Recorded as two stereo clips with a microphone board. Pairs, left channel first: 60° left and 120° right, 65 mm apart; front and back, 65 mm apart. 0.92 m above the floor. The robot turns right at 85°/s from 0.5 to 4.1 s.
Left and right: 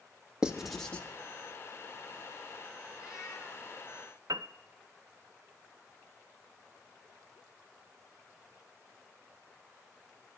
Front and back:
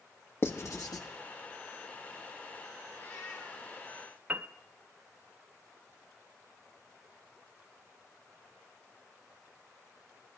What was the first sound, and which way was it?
Writing, 45° right.